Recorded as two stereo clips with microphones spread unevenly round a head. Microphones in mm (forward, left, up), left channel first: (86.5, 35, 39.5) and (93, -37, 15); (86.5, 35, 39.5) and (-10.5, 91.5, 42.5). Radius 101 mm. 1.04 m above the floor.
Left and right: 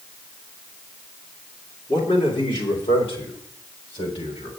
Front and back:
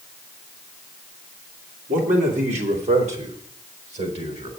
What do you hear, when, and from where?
1.9 s a man speaking: 145° left, 3 m; by 4.5 s 125° left, 4 m